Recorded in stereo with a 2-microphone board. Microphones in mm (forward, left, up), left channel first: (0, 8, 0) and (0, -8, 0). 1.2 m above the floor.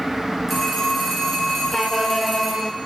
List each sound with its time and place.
0.5 s a phone ringing: centre (ahead or behind), 3 m